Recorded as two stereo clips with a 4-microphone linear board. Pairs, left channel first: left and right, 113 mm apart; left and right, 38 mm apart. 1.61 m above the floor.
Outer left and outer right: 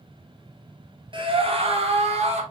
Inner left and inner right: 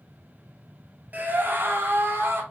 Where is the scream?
45° right (ahead or behind), 0.9 m; by 2.4 s 70° right (ahead or behind), 1.4 m.